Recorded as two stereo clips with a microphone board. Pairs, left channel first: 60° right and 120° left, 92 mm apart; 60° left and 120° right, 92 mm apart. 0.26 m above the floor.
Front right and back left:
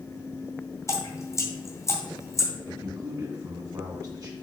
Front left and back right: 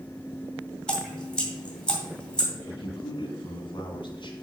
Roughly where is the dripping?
Ahead.